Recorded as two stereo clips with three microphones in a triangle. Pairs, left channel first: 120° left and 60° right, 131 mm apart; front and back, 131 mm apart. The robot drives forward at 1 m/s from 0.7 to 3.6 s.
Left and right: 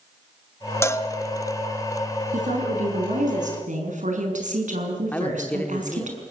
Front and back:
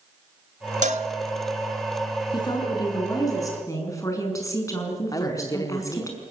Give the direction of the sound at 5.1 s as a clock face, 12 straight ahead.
10 o'clock.